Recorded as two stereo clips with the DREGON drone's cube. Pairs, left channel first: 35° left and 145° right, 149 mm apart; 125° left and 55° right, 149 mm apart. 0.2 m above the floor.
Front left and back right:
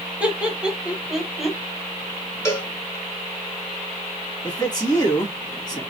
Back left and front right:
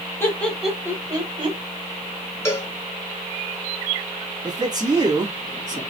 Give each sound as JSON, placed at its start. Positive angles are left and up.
{"t": 0.2, "sound": "laughter", "azimuth_deg": 150, "distance_m": 1.2}
{"t": 2.5, "sound": "a cowbell", "azimuth_deg": 80, "distance_m": 1.4}
{"t": 4.4, "sound": "a man speaking", "azimuth_deg": -10, "distance_m": 2.0}